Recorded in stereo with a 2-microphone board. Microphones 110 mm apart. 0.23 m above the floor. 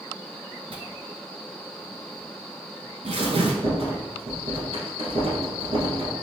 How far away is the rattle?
About 1.1 m.